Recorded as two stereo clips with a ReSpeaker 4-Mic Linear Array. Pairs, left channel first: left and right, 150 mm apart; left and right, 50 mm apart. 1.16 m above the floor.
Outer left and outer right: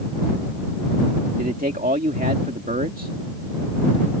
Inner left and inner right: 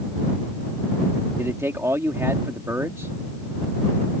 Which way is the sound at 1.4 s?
80° right.